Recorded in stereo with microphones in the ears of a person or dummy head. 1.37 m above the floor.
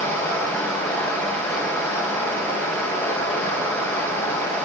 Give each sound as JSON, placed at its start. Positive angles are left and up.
{"t": 0.0, "sound": "running water", "side_deg": 10, "distance_m": 4.5}